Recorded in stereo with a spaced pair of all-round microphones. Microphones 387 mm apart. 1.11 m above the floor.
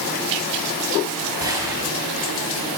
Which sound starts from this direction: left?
A gunshot, at 1.4 s.